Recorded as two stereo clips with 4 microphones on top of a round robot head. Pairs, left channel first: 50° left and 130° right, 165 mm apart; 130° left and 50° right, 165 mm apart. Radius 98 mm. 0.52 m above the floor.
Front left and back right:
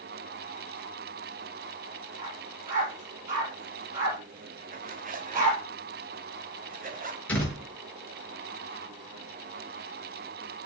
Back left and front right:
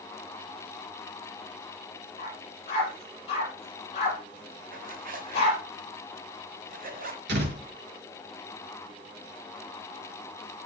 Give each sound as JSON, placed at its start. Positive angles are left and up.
{"t": 2.2, "sound": "a dog barking", "azimuth_deg": -170, "distance_m": 6.5}
{"t": 4.7, "sound": "a zipper", "azimuth_deg": -90, "distance_m": 1.9}
{"t": 7.3, "sound": "a door slam", "azimuth_deg": -30, "distance_m": 5.5}